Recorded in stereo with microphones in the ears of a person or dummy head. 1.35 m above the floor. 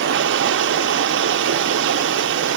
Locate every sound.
0.0 s running water: 60° right (ahead or behind), 0.8 m